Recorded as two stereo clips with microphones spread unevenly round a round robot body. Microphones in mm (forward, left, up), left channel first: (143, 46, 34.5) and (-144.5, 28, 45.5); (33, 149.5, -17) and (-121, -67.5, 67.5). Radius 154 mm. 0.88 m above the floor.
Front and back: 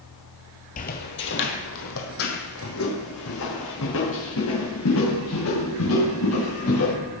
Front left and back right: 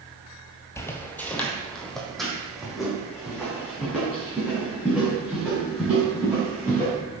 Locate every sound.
0.8 s footsteps: 45° right, 1.0 m; by 6.9 s 40° right, 6 m